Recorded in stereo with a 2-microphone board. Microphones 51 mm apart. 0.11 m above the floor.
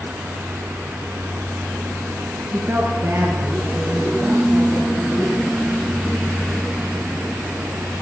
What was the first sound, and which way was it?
A woman speaking, 40° right (ahead or behind).